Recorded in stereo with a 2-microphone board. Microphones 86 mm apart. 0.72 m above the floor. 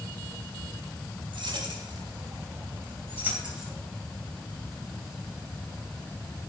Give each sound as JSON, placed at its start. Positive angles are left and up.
{"t": 1.3, "sound": "keys jangling", "side_deg": -70, "distance_m": 2.5}